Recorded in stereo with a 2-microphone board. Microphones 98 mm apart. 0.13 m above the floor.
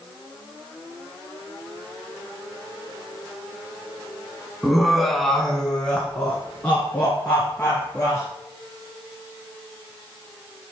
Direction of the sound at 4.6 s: 5° right (ahead or behind).